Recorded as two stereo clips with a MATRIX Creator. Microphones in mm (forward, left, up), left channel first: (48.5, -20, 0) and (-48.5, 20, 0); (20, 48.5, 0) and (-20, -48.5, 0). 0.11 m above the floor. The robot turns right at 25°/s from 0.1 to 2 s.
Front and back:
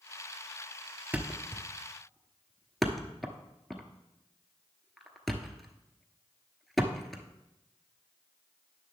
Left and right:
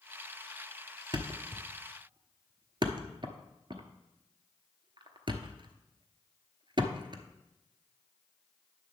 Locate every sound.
1.1 s a thud: 135° right, 0.9 m; by 7.2 s 110° right, 0.9 m